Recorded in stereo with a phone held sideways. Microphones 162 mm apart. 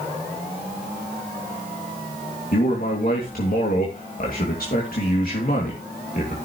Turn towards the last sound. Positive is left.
turn(degrees=65)  # may be behind; listen again after turning